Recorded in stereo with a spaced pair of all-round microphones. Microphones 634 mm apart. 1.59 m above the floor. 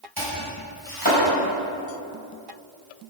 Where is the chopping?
35° right (ahead or behind), 6 m.